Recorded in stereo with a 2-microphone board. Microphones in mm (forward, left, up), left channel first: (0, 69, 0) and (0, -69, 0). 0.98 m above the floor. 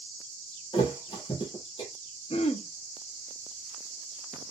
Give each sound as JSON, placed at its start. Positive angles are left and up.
{"t": 0.7, "sound": "a thud", "side_deg": 35, "distance_m": 1.4}
{"t": 2.3, "sound": "throat clearing", "side_deg": 45, "distance_m": 0.5}